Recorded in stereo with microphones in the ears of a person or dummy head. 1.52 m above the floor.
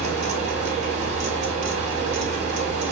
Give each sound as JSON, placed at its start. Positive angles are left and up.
{"t": 0.0, "sound": "a fan", "side_deg": -40, "distance_m": 1.2}